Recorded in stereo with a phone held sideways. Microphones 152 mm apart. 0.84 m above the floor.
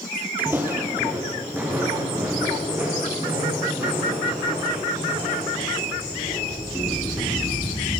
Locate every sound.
0.4 s footsteps: 15° right (ahead or behind), 1.4 m